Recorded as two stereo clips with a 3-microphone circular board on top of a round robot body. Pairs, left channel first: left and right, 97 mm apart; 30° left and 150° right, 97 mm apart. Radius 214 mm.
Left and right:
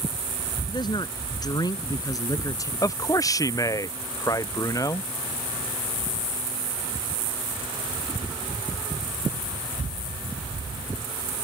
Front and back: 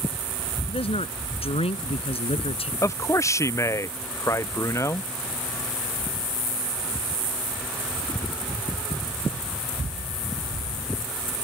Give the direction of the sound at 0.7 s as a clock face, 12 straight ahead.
10 o'clock.